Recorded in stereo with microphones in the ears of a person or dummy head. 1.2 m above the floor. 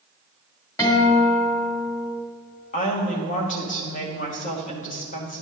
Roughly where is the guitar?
Centre.